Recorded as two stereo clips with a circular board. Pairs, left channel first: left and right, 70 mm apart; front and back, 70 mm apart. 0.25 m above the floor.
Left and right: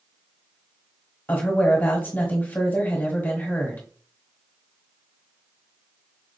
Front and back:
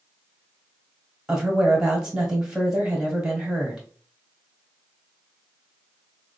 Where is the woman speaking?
110° left, 1.1 m.